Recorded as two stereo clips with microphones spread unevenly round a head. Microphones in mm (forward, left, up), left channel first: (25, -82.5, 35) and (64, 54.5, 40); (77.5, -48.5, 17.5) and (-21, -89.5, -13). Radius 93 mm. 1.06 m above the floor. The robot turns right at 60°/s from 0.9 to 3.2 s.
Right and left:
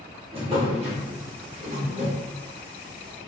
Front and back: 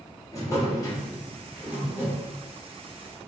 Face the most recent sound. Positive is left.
turn(degrees=-170)